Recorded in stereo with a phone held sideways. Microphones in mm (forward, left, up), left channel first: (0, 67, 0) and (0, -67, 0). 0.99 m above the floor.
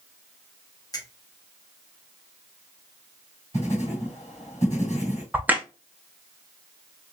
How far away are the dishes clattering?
No dishes clattering in this recording.